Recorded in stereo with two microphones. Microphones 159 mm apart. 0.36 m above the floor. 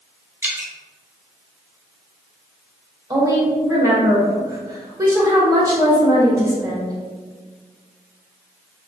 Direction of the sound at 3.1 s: 20° right (ahead or behind).